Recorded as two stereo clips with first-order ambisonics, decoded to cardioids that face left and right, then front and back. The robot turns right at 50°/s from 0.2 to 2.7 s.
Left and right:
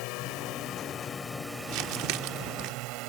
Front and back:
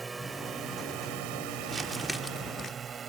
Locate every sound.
0.0 s a drone: 105° left; by 3.1 s 115° right
1.7 s crumpling: 115° right; by 2.7 s 65° right